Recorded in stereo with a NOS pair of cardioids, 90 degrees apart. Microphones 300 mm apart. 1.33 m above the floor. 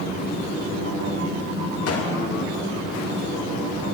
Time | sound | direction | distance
1.9 | a gunshot | 50° left | 1.9 m